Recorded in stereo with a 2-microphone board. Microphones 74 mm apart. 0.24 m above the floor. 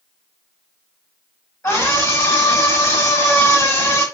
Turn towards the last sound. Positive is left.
turn(degrees=25)  # may be behind; listen again after turning